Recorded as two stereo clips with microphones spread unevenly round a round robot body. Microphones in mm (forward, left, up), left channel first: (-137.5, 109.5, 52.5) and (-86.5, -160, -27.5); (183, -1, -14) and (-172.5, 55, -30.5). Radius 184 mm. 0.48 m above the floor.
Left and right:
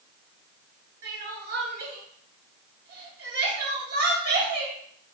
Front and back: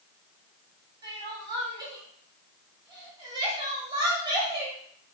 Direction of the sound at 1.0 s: 115° right.